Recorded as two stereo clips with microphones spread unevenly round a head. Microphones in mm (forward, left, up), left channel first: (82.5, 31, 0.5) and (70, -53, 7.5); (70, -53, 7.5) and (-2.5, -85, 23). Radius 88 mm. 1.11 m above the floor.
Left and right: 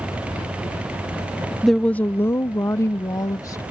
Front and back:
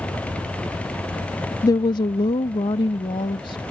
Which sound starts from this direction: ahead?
A woman speaking, at 1.6 s.